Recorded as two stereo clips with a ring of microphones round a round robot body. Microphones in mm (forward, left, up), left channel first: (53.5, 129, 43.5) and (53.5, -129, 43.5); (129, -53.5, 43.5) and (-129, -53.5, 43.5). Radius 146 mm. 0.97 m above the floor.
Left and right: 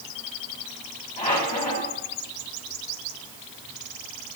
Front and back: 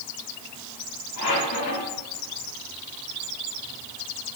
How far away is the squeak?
About 5 m.